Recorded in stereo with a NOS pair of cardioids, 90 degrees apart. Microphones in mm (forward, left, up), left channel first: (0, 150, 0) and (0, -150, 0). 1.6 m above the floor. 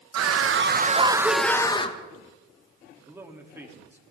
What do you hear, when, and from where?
0.1 s a scream: 60° right, 2.0 m; by 2.0 s 20° left, 2.5 m
3.0 s a man speaking: 10° right, 3 m